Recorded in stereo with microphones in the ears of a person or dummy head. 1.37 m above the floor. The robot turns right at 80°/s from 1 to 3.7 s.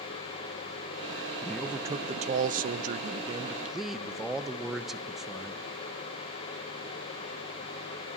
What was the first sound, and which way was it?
A man speaking, 170° left.